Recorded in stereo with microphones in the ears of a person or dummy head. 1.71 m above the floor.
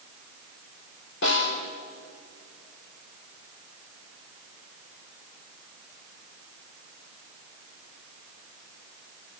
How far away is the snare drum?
About 4 m.